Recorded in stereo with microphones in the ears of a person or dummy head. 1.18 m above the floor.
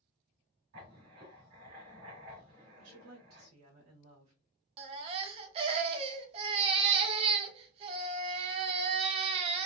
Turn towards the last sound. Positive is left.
turn(degrees=-35)  # may be behind; listen again after turning